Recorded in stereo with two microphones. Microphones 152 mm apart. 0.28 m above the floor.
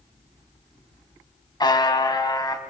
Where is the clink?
I don't hear a clink.